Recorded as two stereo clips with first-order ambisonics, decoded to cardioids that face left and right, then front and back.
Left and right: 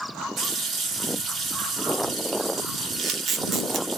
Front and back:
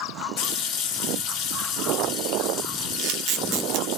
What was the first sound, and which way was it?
A running tap, 25° right.